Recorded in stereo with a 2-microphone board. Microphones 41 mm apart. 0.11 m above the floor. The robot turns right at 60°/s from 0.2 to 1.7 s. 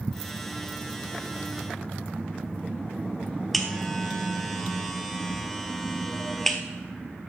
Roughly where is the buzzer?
Centre.